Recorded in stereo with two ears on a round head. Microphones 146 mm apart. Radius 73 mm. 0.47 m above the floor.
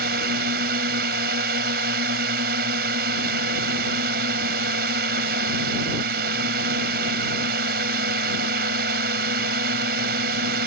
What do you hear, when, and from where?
0.0 s a drone: 65° right (ahead or behind)